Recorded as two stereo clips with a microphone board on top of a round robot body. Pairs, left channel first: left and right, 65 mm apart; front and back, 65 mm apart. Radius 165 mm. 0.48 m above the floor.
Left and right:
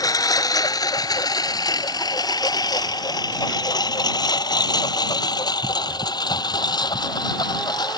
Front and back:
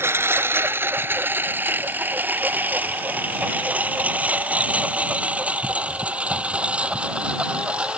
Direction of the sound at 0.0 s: 125° left.